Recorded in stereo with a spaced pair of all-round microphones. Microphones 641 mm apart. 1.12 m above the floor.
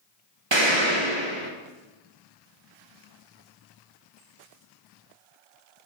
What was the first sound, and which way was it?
An explosion, 45° right (ahead or behind).